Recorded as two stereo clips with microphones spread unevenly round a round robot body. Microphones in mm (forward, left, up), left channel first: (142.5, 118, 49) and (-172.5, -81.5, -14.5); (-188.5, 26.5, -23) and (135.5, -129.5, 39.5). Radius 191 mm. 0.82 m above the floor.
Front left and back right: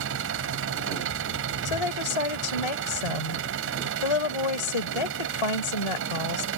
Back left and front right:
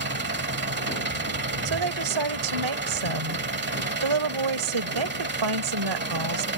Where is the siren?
No siren in this recording.